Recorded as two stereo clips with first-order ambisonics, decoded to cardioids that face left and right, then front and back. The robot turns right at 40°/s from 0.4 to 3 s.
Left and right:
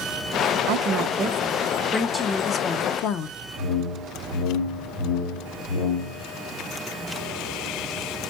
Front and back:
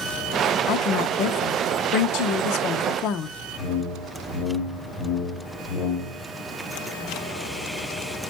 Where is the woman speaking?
50° right, 0.8 m; by 3.4 s 40° left, 0.8 m.